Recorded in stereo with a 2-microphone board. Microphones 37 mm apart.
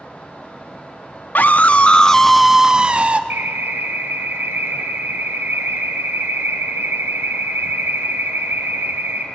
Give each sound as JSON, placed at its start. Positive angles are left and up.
{"t": 1.4, "sound": "a scream", "side_deg": 50, "distance_m": 1.1}
{"t": 3.3, "sound": "an alarm", "side_deg": -80, "distance_m": 2.0}